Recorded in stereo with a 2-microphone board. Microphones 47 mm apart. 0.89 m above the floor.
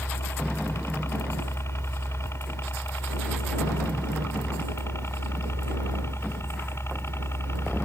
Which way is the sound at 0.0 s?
65° left (ahead or behind).